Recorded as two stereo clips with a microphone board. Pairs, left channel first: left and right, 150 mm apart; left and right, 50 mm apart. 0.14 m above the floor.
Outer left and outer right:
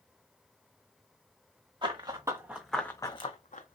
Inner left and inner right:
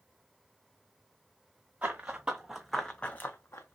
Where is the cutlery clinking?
I don't hear cutlery clinking.